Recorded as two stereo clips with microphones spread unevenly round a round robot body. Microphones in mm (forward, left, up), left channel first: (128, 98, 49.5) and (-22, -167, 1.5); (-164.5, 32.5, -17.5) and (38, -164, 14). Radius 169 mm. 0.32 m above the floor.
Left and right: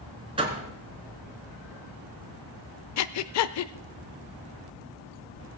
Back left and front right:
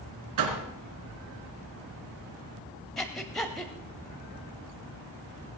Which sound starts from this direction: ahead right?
A door slam, at 0.4 s.